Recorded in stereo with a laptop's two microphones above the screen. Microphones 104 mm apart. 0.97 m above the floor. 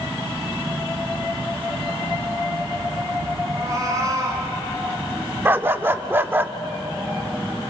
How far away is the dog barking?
About 0.6 m.